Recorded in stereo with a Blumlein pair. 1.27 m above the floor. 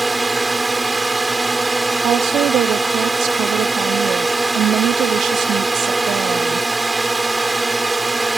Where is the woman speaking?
30° right.